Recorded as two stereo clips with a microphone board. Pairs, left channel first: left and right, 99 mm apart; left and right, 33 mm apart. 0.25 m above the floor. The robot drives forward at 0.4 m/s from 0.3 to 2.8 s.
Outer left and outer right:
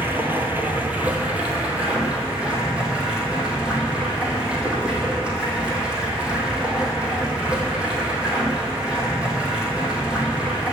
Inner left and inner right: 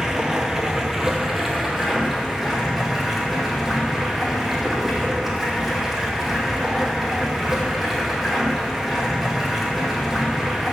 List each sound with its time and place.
0.0 s running water: 20° right (ahead or behind), 1.2 m; by 10.7 s 10° right (ahead or behind), 2 m